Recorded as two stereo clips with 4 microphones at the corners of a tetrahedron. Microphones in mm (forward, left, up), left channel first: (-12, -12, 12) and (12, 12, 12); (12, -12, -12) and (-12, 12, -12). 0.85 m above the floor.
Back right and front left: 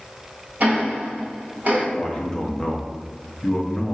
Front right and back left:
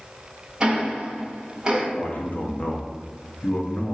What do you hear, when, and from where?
0.6 s ticking: 70° left, 1.1 m
1.9 s a man speaking: 70° right, 0.7 m